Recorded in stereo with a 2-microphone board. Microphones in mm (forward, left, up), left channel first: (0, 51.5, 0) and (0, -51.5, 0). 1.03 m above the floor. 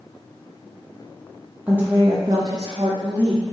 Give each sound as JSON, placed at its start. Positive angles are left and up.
{"t": 1.7, "sound": "a woman speaking", "side_deg": -15, "distance_m": 0.7}